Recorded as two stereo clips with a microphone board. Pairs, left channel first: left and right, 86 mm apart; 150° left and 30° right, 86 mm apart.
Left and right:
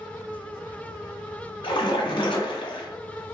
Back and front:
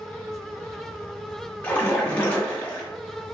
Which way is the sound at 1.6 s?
75° left.